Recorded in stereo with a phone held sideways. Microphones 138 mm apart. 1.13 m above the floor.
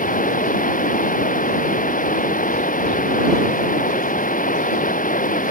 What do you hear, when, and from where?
0.0 s running water: 85° left